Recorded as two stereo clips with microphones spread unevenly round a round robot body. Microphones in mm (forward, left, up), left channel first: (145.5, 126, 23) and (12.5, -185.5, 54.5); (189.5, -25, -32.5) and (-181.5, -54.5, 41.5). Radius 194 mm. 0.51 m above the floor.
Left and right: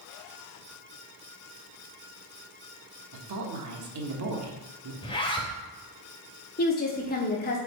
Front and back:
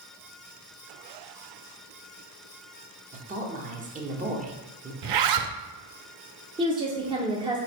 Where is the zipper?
145° left, 0.6 m.